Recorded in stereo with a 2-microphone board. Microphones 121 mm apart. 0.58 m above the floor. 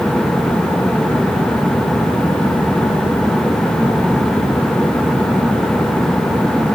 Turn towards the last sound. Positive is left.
No sound to turn to.